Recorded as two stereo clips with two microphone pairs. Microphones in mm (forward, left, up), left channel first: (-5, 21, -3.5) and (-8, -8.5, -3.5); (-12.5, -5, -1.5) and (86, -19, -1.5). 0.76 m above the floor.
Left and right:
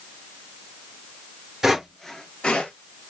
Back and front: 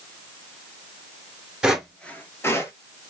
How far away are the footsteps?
About 0.7 m.